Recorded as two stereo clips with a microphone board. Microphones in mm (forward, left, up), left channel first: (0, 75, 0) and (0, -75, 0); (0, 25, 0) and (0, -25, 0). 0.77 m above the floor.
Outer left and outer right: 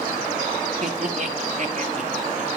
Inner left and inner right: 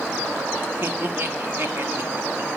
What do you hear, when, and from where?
0.8 s laughter: 55° right (ahead or behind), 1.6 m